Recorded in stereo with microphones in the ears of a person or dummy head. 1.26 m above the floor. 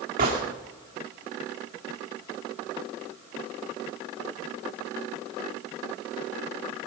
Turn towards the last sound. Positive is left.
turn(degrees=-40)  # may be behind; listen again after turning